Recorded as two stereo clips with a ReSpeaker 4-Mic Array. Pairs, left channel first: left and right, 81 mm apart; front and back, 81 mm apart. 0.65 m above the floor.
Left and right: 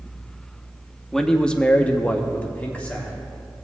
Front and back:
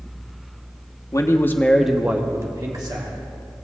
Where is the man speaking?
5° left, 0.8 m; by 3.1 s 160° left, 1.2 m.